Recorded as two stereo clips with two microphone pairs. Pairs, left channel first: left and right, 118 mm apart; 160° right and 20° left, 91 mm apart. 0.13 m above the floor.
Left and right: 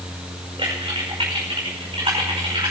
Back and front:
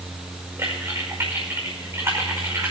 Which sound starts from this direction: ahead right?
Typing on a keyboard, at 0.6 s.